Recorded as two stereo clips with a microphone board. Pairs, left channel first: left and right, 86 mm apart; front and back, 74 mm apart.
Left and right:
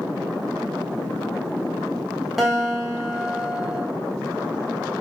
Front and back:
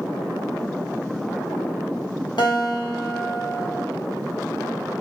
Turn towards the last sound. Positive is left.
turn(degrees=0)